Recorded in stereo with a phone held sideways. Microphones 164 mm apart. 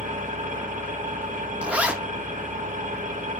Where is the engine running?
50° right (ahead or behind), 1.5 m.